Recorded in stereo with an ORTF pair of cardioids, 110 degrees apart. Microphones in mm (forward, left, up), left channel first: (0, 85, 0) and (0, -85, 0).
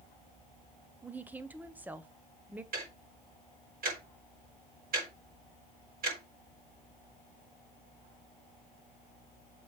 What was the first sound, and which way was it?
A woman speaking, 10° right.